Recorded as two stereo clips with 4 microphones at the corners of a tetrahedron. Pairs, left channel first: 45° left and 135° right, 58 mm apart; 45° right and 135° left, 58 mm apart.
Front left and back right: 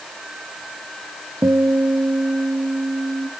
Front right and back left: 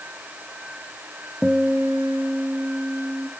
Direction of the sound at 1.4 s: 145° right.